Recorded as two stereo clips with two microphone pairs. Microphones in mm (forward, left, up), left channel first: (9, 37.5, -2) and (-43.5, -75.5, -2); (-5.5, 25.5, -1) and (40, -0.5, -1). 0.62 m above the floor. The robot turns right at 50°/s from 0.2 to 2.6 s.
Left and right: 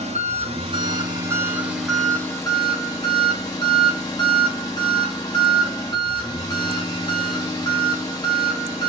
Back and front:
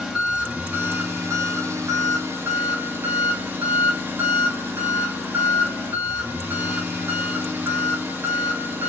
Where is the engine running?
110° right, 1.3 m; by 8.9 s 10° left, 1.3 m.